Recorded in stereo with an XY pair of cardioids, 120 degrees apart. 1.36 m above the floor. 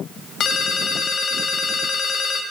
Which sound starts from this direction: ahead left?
A ringtone, at 0.4 s.